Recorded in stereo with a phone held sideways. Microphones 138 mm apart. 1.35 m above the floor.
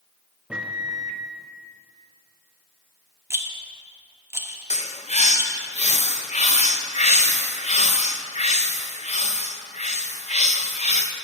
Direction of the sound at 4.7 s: 60° left (ahead or behind).